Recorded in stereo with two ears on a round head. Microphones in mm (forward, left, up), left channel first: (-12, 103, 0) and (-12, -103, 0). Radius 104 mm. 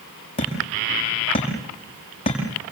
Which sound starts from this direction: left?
Hammering, at 0.4 s.